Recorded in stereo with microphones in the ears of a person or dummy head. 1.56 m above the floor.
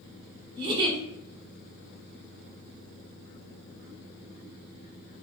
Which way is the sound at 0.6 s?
25° right (ahead or behind).